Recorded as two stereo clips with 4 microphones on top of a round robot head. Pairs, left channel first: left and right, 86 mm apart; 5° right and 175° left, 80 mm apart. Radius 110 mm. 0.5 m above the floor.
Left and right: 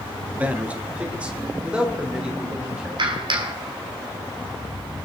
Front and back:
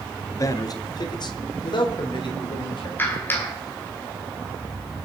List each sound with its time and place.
0.3 s a man speaking: 25° right, 1.2 m; by 2.9 s 10° right, 3.5 m
3.0 s a clap: 70° right, 2.5 m